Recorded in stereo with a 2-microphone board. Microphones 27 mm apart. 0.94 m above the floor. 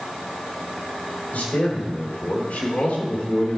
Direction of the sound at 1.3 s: 80° left.